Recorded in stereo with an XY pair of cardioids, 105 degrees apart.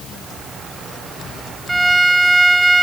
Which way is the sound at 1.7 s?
15° right.